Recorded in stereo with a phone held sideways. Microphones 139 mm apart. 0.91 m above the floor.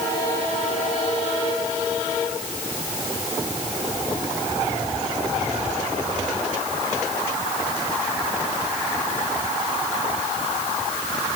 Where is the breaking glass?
I don't hear breaking glass.